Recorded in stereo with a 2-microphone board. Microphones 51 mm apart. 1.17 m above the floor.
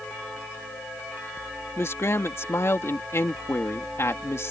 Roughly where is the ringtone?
No ringtone in this recording.